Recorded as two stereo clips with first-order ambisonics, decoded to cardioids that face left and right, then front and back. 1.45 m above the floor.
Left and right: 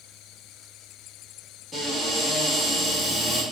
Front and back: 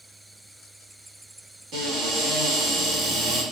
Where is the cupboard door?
175° left, 1.0 m.